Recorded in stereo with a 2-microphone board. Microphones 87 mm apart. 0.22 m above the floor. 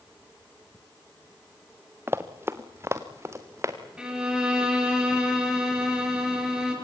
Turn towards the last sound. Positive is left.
turn(degrees=-10)  # may be behind; listen again after turning